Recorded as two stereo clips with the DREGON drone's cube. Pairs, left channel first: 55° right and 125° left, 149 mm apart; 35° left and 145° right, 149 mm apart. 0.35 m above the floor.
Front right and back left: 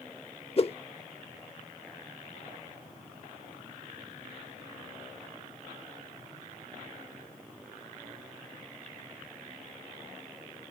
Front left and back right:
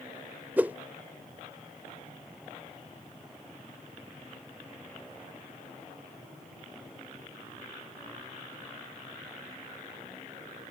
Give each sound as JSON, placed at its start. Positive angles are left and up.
{"t": 0.6, "sound": "a whoosh", "azimuth_deg": -75}